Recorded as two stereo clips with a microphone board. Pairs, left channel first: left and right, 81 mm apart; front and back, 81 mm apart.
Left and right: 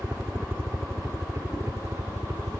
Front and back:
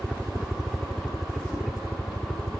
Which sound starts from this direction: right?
A helicopter, at 0.0 s.